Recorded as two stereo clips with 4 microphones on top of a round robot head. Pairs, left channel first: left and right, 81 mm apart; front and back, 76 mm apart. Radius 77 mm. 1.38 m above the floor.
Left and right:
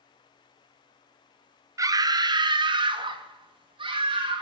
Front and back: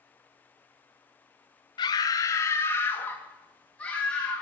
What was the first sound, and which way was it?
A scream, 40° right.